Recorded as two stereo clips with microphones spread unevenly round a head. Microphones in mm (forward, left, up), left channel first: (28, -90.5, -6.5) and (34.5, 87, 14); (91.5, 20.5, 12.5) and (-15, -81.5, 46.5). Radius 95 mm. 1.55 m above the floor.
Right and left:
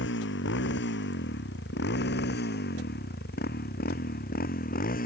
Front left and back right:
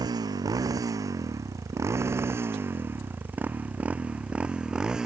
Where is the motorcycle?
75° right; by 5.1 s 50° right.